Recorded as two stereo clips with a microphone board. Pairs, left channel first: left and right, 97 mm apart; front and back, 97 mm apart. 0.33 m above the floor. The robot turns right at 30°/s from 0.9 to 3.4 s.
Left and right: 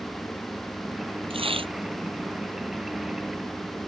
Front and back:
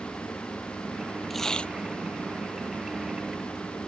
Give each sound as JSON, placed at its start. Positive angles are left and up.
{"t": 1.3, "sound": "tearing paper", "azimuth_deg": -90}